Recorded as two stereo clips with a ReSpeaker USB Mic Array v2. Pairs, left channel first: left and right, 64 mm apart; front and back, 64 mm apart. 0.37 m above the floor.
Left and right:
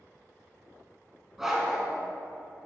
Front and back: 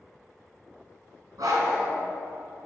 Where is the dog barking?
175° right, 1.8 m.